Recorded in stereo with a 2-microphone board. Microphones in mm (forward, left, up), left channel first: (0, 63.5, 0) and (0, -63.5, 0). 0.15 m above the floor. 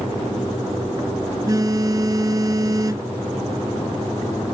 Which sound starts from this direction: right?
A phone buzzing, at 1.5 s.